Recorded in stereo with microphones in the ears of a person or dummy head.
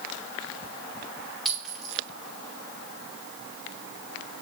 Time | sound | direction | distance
1.4 | a clink | centre (ahead or behind) | 2 m